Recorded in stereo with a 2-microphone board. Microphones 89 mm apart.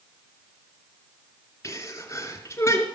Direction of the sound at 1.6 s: 35° left (ahead or behind).